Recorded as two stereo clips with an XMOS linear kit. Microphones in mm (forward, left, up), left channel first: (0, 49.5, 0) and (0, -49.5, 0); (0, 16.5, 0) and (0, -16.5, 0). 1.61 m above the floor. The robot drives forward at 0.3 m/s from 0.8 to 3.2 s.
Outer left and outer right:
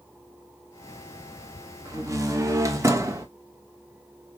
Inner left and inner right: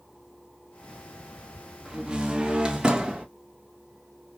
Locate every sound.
1.9 s a door slam: 30° right (ahead or behind), 0.9 m